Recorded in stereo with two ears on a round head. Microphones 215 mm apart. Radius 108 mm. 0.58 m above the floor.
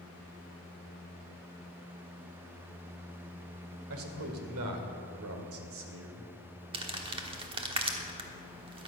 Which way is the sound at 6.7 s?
20° right (ahead or behind).